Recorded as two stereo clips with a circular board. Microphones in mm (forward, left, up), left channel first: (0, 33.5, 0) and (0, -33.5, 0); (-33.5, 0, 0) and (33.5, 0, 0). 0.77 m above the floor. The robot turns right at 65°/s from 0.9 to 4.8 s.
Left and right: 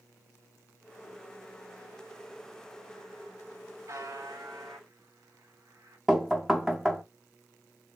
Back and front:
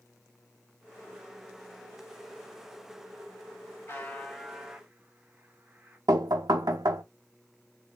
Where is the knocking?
5° right, 0.8 m.